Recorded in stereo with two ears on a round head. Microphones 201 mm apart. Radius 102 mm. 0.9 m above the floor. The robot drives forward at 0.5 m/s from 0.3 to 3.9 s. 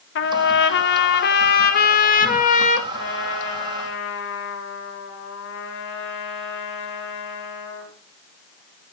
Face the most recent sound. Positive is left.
turn(degrees=60)  # may be behind; listen again after turning